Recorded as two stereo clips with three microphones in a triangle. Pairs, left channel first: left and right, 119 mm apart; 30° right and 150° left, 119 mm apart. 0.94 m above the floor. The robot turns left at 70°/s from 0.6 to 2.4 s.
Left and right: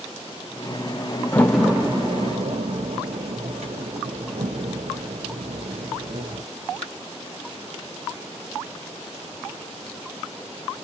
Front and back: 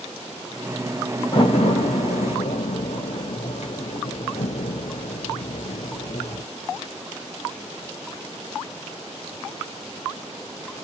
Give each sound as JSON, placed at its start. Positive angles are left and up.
{"t": 1.3, "sound": "a door slam", "azimuth_deg": 20, "distance_m": 0.8}